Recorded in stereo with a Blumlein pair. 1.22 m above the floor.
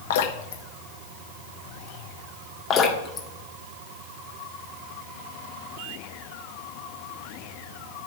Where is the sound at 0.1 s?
55° left, 1.2 m.